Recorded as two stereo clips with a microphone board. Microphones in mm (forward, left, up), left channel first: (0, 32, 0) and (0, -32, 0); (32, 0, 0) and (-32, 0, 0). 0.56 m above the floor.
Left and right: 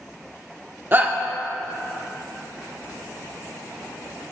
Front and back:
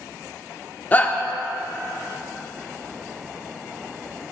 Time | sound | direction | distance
0.9 | a shout | 50° right | 1.3 m